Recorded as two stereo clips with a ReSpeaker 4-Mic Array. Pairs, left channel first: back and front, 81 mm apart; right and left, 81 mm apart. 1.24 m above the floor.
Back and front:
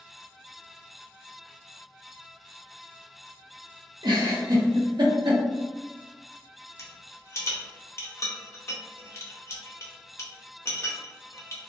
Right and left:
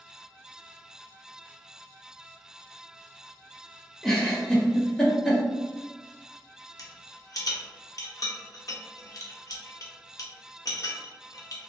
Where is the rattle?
130° right, 0.6 m.